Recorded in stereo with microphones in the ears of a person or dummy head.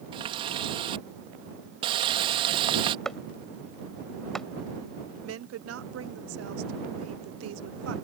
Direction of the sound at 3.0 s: Centre (ahead or behind).